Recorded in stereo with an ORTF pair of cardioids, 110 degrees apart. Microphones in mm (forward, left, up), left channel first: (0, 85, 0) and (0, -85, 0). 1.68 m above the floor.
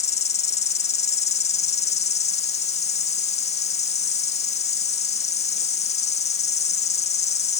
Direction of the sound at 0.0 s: 40° left.